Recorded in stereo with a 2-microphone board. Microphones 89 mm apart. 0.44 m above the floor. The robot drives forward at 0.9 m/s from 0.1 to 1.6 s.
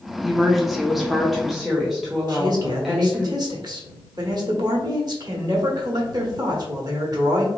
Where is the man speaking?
50° right (ahead or behind), 1.4 m.